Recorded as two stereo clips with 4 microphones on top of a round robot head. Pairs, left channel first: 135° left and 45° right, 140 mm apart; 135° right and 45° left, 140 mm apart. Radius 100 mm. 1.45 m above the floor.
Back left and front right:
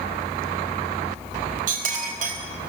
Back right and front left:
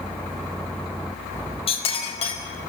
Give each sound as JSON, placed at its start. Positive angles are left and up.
{"t": 1.7, "sound": "a clink", "azimuth_deg": -85, "distance_m": 4.0}